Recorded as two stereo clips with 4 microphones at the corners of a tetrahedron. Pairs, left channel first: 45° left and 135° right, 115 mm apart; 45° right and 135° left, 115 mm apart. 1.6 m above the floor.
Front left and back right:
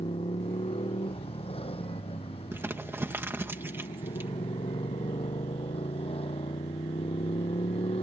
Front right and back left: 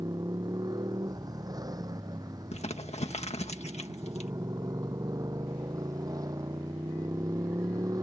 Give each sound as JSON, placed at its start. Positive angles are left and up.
{"t": 0.0, "sound": "a motorcycle", "azimuth_deg": 80}
{"t": 2.5, "sound": "crumpling", "azimuth_deg": -65}